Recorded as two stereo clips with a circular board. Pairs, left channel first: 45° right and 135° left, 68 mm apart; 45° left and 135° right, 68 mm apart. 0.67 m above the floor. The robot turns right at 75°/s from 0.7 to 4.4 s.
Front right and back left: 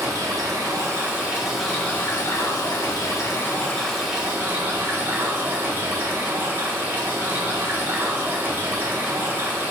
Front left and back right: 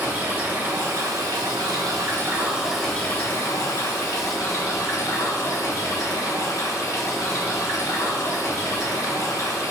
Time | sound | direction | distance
0.0 | running water | 160° left | 2.5 m